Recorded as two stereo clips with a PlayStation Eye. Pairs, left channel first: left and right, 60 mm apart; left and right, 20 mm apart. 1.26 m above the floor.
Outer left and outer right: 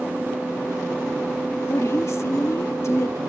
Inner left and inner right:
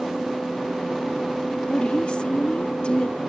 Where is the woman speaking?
55° left (ahead or behind).